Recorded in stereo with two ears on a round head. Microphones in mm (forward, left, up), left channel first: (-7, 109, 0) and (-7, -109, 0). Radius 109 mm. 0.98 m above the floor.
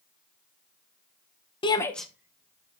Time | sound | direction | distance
1.6 | a shout | 20° left (ahead or behind) | 0.6 m